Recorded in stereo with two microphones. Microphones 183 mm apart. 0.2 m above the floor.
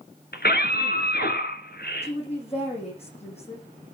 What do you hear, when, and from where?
0.3 s a scream: 60° left (ahead or behind), 2.5 m
2.0 s a woman speaking: 35° left (ahead or behind), 8 m